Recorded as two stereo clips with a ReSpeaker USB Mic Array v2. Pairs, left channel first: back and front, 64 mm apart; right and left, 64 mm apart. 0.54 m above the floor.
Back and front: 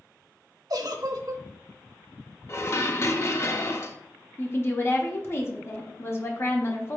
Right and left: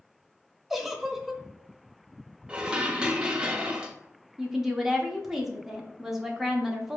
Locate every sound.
0.7 s a giggle: 5° left, 0.5 m
2.5 s dishes clattering: 160° left, 0.5 m
4.4 s a woman speaking: 170° left, 0.8 m